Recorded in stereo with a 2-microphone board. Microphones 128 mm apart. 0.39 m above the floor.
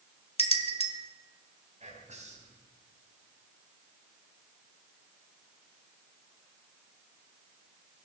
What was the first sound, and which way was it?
A bell, 50° left (ahead or behind).